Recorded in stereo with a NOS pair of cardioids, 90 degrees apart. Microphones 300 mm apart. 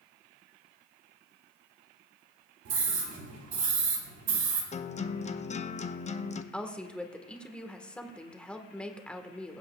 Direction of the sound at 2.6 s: 65° right.